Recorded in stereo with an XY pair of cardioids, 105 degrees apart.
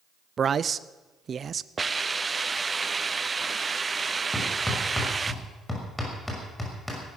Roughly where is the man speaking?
Ahead right.